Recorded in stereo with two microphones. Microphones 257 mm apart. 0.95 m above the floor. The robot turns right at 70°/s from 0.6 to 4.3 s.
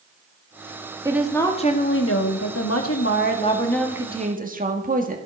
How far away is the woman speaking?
About 1.8 m.